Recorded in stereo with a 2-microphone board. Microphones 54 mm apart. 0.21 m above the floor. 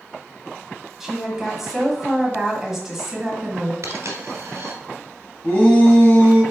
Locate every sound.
1.0 s a woman speaking: 5° right (ahead or behind), 1.1 m
3.8 s a dropped coin: 65° right (ahead or behind), 1.3 m
5.4 s a shout: 25° left (ahead or behind), 1.6 m